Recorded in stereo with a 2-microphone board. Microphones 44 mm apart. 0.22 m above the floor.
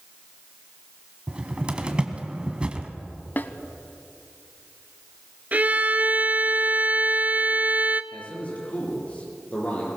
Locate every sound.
1.3 s a cupboard door: 25° right (ahead or behind), 1.7 m
3.4 s a snare drum: 45° left (ahead or behind), 0.8 m
5.5 s a violin: 35° right (ahead or behind), 0.7 m
8.1 s a man speaking: 35° left (ahead or behind), 6 m